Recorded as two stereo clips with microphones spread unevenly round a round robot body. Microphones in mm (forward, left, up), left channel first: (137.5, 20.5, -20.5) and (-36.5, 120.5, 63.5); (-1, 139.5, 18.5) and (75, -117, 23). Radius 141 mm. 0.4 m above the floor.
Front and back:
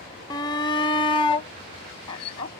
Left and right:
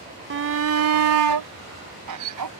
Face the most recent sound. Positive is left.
turn(degrees=-90)